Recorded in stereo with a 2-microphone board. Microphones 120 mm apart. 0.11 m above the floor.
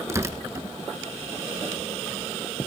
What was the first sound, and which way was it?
Tearing paper, 25° right (ahead or behind).